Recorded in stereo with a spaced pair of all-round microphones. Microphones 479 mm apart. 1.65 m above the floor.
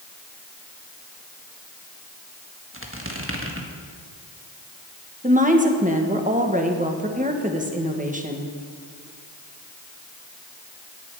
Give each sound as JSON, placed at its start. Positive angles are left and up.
{"t": 2.7, "sound": "a squeak", "side_deg": -25, "distance_m": 1.6}
{"t": 5.2, "sound": "a woman speaking", "side_deg": -15, "distance_m": 1.6}